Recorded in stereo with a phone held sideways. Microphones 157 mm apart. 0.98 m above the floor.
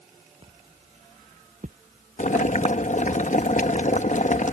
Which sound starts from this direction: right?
Footsteps, at 0.4 s.